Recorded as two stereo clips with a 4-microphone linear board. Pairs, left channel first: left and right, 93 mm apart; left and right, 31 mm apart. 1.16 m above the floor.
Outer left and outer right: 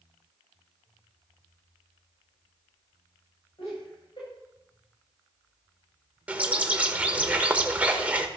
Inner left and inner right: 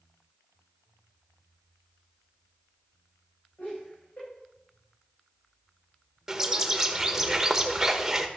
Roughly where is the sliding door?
No sliding door in this recording.